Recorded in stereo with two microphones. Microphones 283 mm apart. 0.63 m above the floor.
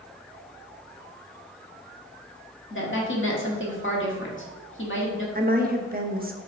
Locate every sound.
2.7 s a woman speaking: 45° left (ahead or behind), 1.7 m
5.3 s a woman speaking: 35° right (ahead or behind), 0.9 m